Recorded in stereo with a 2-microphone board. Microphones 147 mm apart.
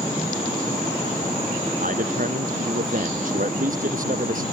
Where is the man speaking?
65° right (ahead or behind).